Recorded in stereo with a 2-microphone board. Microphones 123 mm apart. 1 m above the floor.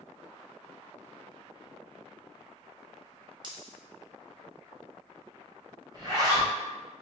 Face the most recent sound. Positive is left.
turn(degrees=-30)  # may be behind; listen again after turning